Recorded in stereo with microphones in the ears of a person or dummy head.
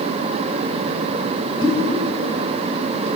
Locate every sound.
1.6 s a pop: 30° left (ahead or behind), 2.5 m